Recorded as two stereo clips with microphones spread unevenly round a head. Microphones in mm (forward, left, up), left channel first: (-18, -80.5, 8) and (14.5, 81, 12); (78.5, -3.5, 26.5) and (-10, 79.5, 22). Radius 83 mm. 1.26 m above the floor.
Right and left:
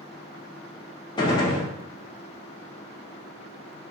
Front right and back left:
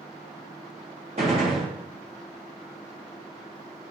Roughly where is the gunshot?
Behind.